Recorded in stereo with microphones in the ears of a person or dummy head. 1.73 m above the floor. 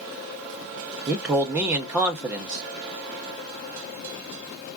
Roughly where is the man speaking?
Centre.